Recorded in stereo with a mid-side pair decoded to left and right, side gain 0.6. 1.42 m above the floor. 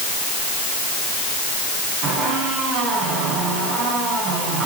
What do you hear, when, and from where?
2.0 s a squeak: 70° right, 9.5 m